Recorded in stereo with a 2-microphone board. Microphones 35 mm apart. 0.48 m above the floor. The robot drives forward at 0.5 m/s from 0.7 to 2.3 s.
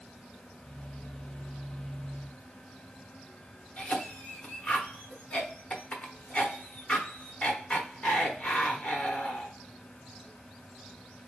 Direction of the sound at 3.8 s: 40° left (ahead or behind).